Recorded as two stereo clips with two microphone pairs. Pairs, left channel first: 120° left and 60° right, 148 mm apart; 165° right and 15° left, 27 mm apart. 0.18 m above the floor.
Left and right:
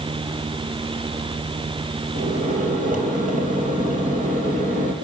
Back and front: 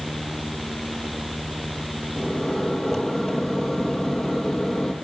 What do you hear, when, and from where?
2.1 s a microwave: 85° right, 4 m